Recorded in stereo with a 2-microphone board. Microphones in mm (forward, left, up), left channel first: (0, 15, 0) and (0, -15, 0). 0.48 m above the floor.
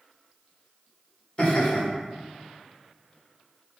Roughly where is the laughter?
Left.